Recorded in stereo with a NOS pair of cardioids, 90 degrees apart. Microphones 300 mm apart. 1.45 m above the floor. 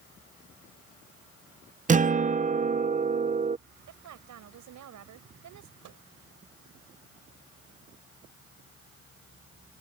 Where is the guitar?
25° right.